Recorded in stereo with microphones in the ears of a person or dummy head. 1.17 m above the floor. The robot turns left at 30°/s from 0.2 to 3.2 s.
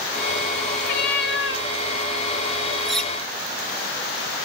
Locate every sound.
0.8 s a cat meowing: 45° left (ahead or behind), 0.6 m; by 1.7 s 55° left (ahead or behind), 0.6 m
2.9 s cutlery clinking: centre (ahead or behind), 0.5 m; by 3.1 s 5° left (ahead or behind), 0.5 m